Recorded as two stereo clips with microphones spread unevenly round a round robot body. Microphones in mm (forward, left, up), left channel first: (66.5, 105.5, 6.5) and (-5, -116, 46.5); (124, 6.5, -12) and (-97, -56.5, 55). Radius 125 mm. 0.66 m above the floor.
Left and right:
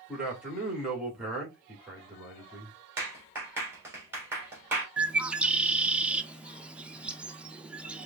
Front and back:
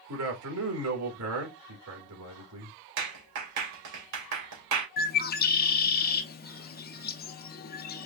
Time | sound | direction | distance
0.1 | a man speaking | 160° left | 2 m
3.0 | a clap | 170° left | 2.5 m
5.0 | a bird | 20° right | 0.5 m